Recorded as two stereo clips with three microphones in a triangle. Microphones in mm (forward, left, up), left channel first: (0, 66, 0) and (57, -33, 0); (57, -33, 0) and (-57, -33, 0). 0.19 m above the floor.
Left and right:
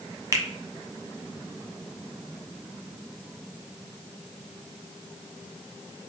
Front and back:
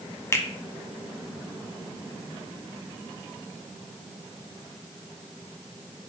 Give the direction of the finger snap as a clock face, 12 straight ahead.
1 o'clock.